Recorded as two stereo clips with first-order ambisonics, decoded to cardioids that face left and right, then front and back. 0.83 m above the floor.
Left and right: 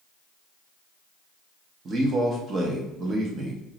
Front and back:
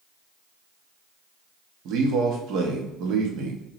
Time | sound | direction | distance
1.9 | a man speaking | 150° right | 0.9 m